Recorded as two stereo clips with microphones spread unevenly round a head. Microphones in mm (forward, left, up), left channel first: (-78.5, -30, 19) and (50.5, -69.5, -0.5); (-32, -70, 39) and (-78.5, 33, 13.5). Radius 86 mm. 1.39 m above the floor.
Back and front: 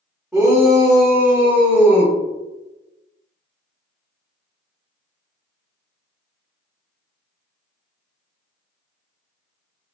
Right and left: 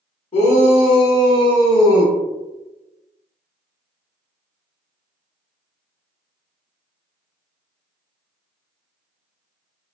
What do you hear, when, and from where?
0.3 s a shout: 100° right, 1.6 m; by 2.1 s 125° right, 2.5 m